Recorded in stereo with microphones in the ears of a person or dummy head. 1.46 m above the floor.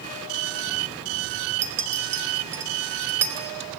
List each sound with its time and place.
1.6 s a clink: 15° right (ahead or behind), 0.9 m